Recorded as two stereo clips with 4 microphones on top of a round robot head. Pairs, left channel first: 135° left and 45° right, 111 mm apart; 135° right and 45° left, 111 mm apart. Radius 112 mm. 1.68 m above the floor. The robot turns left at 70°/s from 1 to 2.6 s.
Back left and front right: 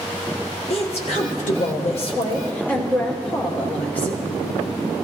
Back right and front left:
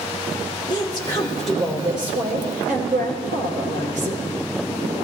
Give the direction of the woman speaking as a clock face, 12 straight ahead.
6 o'clock.